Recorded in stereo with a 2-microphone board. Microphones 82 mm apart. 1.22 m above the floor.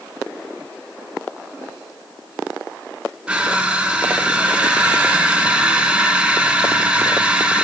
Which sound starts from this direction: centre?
Crushing, at 3.3 s.